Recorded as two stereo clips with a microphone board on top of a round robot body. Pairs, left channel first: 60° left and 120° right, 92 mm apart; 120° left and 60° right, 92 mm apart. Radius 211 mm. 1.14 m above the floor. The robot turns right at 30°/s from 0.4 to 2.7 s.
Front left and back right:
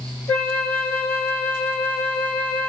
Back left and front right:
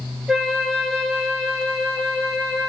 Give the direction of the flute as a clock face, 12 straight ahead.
11 o'clock.